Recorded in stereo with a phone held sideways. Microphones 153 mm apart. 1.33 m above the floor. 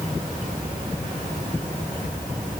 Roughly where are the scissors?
I don't hear scissors.